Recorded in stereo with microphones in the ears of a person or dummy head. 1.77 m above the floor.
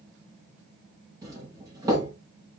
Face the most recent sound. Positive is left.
turn(degrees=-20)  # may be behind; listen again after turning